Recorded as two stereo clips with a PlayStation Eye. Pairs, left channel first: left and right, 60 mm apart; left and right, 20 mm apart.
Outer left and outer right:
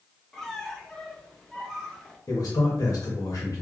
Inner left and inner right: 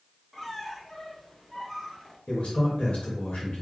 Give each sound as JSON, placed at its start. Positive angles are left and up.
{"t": 0.3, "sound": "a squeak", "side_deg": 10, "distance_m": 0.7}
{"t": 2.3, "sound": "a man speaking", "side_deg": 70, "distance_m": 1.3}